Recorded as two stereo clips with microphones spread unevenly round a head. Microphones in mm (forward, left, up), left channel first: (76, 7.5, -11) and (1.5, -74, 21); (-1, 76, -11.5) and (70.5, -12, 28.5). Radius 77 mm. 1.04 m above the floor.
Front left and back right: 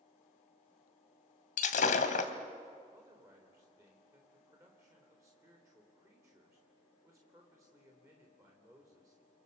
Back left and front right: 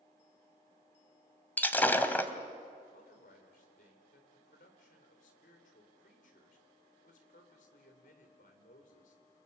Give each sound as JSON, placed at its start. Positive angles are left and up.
{"t": 1.6, "sound": "breaking glass", "azimuth_deg": 45, "distance_m": 1.7}
{"t": 2.9, "sound": "a man speaking", "azimuth_deg": 155, "distance_m": 3.5}